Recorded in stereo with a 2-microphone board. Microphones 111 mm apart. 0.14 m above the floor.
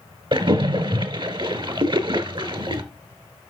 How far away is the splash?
About 0.9 m.